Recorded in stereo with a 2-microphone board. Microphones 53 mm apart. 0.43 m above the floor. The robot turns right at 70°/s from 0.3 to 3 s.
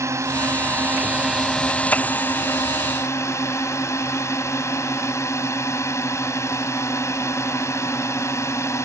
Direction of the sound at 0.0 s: 85° right.